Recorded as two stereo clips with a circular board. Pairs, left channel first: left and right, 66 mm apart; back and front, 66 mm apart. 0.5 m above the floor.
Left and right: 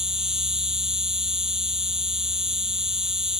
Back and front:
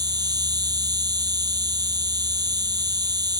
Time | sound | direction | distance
0.0 | an insect | 10° right | ?